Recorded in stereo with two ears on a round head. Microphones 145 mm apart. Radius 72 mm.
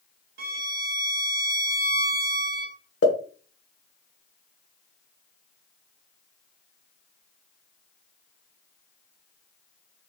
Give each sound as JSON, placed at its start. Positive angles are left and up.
{"t": 0.4, "sound": "a violin", "side_deg": -60, "distance_m": 0.5}
{"t": 3.0, "sound": "a pop", "side_deg": 65, "distance_m": 1.1}